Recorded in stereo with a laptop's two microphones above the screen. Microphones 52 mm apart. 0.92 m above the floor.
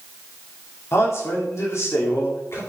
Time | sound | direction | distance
0.9 | a man speaking | 60° left (ahead or behind) | 3 m